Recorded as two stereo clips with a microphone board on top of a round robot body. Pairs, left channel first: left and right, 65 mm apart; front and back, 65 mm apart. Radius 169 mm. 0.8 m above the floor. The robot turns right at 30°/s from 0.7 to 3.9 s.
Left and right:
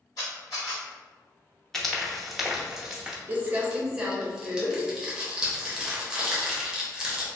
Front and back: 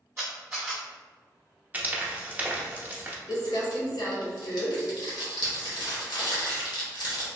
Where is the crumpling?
25° right, 0.8 m; by 7.3 s 10° right, 0.8 m.